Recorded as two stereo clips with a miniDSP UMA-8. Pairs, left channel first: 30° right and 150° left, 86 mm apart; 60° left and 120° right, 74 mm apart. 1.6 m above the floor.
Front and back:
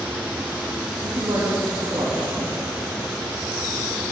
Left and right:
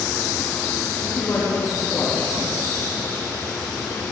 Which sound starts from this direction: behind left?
A man speaking, at 1.0 s.